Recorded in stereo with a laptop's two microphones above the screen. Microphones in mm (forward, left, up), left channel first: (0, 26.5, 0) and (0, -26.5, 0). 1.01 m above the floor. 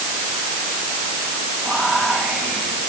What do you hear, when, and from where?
1.6 s whispering: 30° right (ahead or behind), 9.5 m